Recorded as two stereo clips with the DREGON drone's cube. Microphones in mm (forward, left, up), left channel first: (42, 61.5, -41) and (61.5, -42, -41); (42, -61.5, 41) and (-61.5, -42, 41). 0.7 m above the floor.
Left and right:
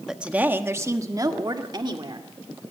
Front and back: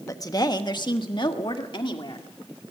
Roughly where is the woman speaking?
Ahead.